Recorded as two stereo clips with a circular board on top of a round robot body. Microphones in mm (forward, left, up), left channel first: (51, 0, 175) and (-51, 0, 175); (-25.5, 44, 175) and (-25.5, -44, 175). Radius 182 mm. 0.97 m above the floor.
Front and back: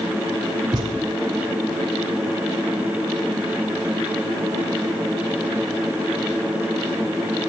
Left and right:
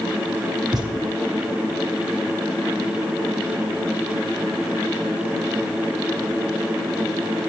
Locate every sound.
0.7 s a thud: 135° right, 2.5 m